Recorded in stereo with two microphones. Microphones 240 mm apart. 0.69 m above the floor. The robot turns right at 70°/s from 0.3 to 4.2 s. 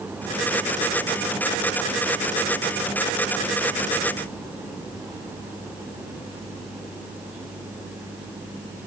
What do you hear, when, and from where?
Only background noise.